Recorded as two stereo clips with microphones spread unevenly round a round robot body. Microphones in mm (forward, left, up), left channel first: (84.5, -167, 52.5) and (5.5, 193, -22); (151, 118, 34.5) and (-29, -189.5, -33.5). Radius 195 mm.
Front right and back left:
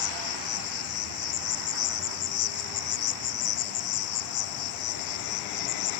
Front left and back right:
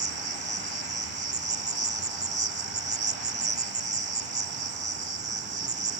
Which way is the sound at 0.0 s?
55° right.